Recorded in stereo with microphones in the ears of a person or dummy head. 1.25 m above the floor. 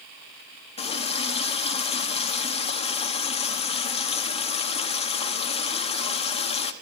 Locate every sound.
0.8 s a running tap: 30° left (ahead or behind), 1.1 m